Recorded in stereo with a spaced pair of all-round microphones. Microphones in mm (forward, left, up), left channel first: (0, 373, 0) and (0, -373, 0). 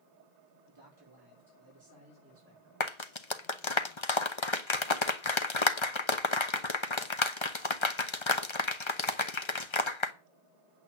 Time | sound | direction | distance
0.7 | a man speaking | 35° right (ahead or behind) | 4.5 m
2.8 | a clap | 40° left (ahead or behind) | 1.0 m